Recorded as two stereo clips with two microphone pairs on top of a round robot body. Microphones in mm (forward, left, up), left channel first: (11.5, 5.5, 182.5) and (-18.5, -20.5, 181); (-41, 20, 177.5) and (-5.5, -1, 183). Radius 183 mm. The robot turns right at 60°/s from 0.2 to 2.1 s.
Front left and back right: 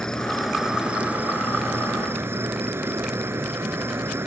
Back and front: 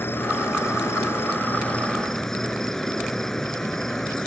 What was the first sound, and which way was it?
An insect, 115° left.